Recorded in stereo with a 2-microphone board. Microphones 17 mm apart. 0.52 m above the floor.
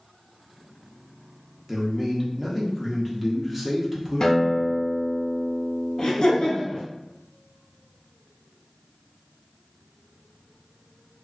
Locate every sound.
1.7 s a man speaking: 10° right (ahead or behind), 0.7 m
4.2 s a guitar: 45° left (ahead or behind), 0.6 m
6.0 s laughter: 45° left (ahead or behind), 1.1 m